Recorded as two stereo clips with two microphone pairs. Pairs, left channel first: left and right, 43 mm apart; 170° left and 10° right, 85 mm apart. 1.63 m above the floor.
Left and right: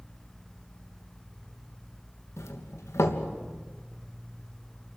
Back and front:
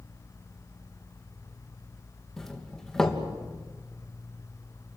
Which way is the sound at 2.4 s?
85° left.